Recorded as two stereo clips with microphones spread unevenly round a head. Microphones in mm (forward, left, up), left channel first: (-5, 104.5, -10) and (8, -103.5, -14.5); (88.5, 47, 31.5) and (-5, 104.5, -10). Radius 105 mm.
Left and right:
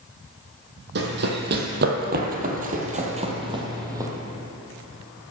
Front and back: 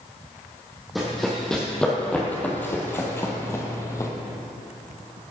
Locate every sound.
0.9 s running footsteps: 105° right, 2 m; by 4.1 s 15° right, 1.8 m